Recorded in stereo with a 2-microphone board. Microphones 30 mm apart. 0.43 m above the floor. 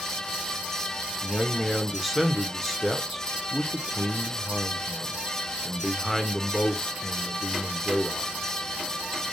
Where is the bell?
No bell in this recording.